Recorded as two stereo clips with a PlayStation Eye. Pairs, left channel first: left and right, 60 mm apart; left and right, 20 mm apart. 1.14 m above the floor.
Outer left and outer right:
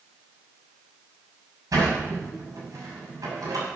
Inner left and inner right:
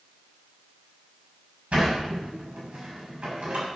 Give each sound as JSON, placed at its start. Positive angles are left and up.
{"t": 1.7, "sound": "a sliding door", "side_deg": -75, "distance_m": 6.5}